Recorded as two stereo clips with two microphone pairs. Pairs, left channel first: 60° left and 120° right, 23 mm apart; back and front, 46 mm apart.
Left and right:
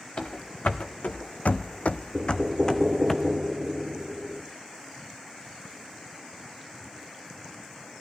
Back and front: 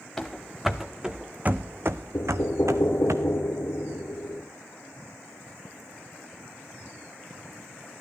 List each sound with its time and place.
0.2 s running footsteps: 95° left, 1.0 m; by 3.1 s 15° right, 0.9 m
2.1 s knocking: straight behind, 2 m